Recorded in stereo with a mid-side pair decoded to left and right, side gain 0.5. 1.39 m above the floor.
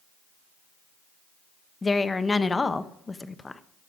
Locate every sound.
1.8 s a woman speaking: 25° left, 0.8 m